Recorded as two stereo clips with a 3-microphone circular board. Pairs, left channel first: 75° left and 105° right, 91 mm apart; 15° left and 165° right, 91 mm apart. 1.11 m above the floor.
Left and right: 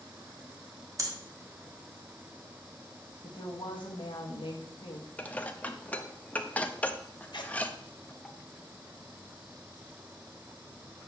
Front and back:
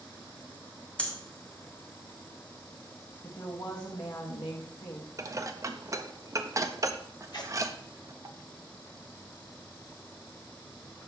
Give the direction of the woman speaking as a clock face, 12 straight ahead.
10 o'clock.